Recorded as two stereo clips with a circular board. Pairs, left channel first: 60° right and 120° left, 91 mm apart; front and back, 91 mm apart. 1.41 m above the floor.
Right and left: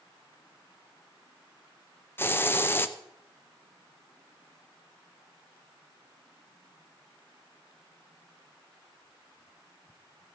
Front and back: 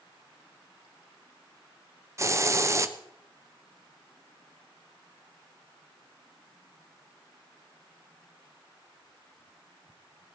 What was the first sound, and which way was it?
A hiss, 125° right.